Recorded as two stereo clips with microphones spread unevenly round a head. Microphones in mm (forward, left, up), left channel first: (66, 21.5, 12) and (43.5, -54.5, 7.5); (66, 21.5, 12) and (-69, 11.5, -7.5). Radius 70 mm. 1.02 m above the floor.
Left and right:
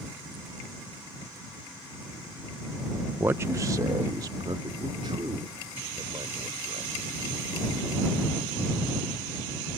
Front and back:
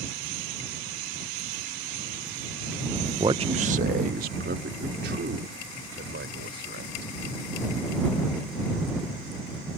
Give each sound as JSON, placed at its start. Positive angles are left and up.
{"t": 3.2, "sound": "a man speaking", "azimuth_deg": -150}